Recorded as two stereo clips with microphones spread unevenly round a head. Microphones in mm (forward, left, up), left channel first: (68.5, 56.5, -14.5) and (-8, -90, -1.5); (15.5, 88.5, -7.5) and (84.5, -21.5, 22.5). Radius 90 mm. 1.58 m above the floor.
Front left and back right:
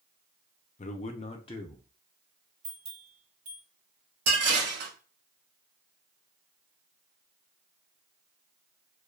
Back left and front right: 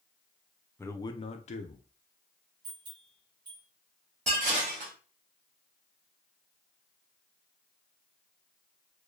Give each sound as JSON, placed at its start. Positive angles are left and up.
{"t": 0.8, "sound": "a man speaking", "azimuth_deg": 40, "distance_m": 0.5}
{"t": 2.6, "sound": "a bell", "azimuth_deg": -100, "distance_m": 2.5}
{"t": 4.3, "sound": "dishes clattering", "azimuth_deg": -105, "distance_m": 2.5}